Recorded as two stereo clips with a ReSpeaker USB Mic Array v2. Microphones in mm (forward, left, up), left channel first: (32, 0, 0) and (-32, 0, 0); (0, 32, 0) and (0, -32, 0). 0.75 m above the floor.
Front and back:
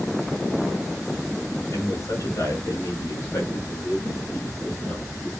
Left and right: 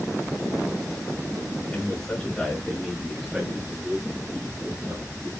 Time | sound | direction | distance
1.7 | a man speaking | 30° left | 2.5 m